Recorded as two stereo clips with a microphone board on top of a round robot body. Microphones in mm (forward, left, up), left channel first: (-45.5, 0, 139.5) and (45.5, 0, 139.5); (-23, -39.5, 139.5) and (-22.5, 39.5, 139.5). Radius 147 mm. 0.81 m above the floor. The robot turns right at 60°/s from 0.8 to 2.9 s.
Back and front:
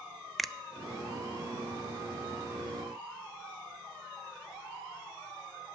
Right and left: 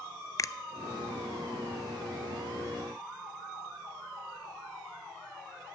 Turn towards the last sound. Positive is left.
turn(degrees=35)